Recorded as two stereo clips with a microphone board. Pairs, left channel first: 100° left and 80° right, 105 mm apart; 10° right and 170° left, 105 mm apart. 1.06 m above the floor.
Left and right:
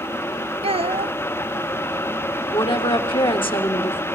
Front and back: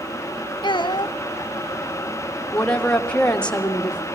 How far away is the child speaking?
About 0.9 m.